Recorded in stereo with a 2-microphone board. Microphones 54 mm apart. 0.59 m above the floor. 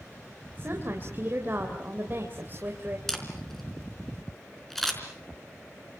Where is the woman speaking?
40° right (ahead or behind), 3 m.